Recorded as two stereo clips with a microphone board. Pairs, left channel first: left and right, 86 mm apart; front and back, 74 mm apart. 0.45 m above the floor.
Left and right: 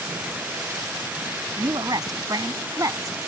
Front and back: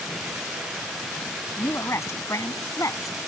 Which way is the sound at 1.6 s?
55° right.